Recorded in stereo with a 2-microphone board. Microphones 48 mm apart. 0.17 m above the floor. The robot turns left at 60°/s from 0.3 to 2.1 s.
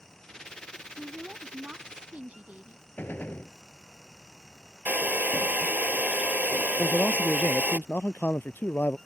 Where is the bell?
No bell in this recording.